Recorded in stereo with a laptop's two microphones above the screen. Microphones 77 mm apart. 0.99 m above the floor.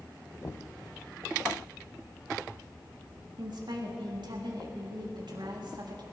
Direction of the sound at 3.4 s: 70° right (ahead or behind).